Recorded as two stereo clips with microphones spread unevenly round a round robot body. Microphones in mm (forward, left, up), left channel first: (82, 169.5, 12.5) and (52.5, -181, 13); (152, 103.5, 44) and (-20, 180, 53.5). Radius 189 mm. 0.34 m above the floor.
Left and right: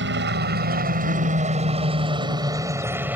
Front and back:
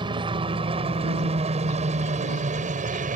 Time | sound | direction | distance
0.0 | a helicopter | 140° right | ?